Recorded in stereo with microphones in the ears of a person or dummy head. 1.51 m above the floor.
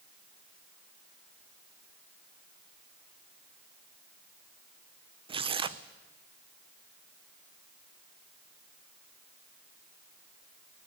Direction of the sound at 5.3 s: 30° right (ahead or behind).